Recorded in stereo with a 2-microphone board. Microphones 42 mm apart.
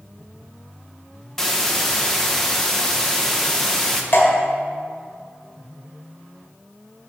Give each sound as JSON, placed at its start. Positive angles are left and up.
{"t": 1.4, "sound": "a hiss", "side_deg": 10, "distance_m": 0.8}
{"t": 4.1, "sound": "dripping", "side_deg": 55, "distance_m": 2.0}